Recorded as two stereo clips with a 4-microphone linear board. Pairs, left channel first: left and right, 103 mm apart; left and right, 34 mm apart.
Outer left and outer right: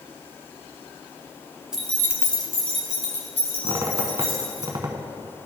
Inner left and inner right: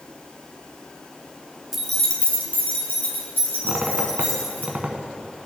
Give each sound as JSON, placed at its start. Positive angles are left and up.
{"t": 1.7, "sound": "keys jangling", "side_deg": -10, "distance_m": 0.9}
{"t": 3.6, "sound": "a squeak", "side_deg": -35, "distance_m": 0.7}